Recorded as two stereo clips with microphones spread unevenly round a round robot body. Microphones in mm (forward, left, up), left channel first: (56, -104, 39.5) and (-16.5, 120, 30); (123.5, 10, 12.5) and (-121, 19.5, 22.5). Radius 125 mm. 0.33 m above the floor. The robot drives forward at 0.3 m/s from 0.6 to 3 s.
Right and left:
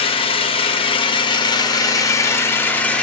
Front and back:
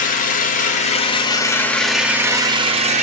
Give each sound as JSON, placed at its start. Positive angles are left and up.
{"t": 0.0, "sound": "an engine running", "azimuth_deg": -20, "distance_m": 0.8}